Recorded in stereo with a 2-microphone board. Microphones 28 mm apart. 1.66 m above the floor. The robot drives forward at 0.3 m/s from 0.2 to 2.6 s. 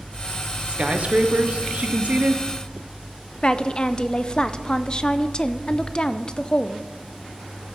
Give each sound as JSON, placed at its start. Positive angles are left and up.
{"t": 0.7, "sound": "a man speaking", "side_deg": -40, "distance_m": 1.3}
{"t": 3.4, "sound": "a woman speaking", "side_deg": 35, "distance_m": 0.6}